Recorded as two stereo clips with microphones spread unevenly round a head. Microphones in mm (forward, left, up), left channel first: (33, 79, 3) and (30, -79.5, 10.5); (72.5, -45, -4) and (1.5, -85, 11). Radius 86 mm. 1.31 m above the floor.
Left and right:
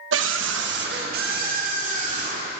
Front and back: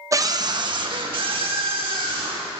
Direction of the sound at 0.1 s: 95° right.